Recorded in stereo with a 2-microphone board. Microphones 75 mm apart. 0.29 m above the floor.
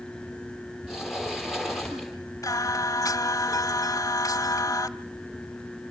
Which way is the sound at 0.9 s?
5° right (ahead or behind).